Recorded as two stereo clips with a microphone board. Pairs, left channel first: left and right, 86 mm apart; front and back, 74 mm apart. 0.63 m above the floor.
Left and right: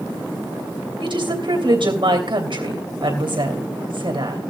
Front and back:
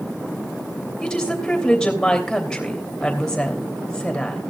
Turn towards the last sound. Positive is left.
turn(degrees=-80)